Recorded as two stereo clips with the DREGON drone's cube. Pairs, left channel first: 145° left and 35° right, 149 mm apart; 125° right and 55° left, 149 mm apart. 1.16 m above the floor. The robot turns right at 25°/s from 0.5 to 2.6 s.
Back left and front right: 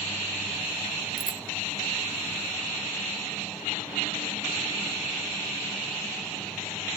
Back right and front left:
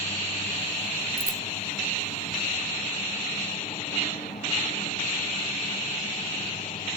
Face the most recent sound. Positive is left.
turn(degrees=150)